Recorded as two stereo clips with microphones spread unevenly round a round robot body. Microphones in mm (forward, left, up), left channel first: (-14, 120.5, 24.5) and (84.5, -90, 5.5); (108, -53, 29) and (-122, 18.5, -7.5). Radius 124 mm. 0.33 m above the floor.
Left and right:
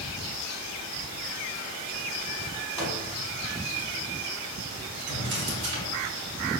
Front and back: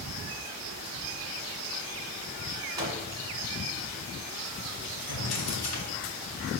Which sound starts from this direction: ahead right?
A drawer, at 5.1 s.